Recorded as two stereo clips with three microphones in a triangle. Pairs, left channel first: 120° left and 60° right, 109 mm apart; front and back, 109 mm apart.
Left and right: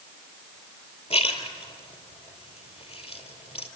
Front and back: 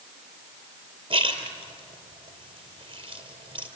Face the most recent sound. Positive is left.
turn(degrees=140)